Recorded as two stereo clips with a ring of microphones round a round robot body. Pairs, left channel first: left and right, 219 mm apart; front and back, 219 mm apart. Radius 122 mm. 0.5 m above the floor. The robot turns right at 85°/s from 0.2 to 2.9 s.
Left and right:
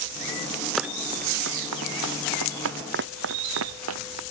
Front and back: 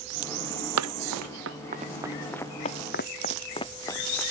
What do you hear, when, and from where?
0.8 s running footsteps: straight behind; by 4.2 s 85° right